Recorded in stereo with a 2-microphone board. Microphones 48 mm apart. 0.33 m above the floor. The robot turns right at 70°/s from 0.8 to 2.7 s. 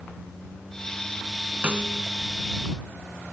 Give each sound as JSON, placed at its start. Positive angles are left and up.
{"t": 1.6, "sound": "a snare drum", "side_deg": -25}